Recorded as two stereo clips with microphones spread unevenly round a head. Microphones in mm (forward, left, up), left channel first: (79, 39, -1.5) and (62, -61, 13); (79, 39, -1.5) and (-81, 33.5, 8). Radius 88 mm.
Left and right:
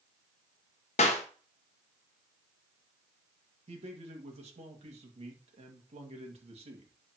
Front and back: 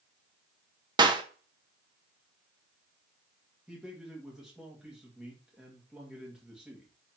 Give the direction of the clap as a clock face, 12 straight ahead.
8 o'clock.